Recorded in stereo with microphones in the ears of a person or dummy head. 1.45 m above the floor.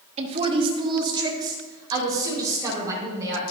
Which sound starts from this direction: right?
A woman speaking, at 0.2 s.